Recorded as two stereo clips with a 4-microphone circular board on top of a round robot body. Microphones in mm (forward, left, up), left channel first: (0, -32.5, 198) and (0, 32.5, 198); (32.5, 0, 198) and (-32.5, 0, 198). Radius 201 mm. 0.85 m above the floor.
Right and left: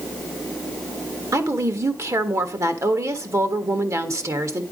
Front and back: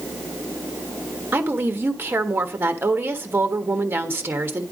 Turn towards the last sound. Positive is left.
turn(degrees=125)